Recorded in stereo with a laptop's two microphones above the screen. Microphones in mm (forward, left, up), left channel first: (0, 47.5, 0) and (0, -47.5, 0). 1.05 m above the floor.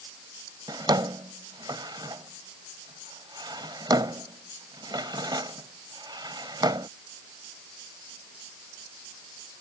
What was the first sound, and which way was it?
A drawer, 55° right (ahead or behind).